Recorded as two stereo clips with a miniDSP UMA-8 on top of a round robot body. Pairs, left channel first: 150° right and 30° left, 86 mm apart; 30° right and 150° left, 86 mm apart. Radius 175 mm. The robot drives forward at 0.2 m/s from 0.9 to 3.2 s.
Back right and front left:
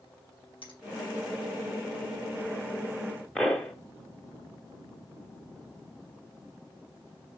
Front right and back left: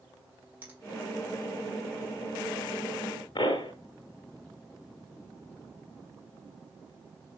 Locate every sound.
0.6 s a finger snap: 140° right, 4.5 m
3.4 s a pop: 65° right, 0.7 m